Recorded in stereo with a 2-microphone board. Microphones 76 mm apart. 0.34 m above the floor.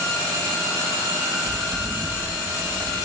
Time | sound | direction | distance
1.4 | footsteps | 30° right (ahead or behind) | 6.5 m